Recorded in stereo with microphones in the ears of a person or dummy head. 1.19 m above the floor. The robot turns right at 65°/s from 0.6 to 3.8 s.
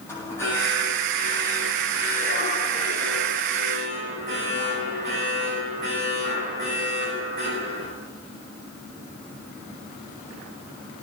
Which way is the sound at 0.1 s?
15° left.